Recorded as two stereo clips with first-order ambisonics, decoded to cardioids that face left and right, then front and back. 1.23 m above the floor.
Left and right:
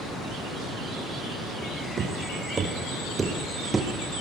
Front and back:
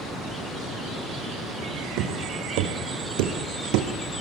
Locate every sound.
2.0 s footsteps: 155° right, 4 m; by 3.9 s 170° right, 3.5 m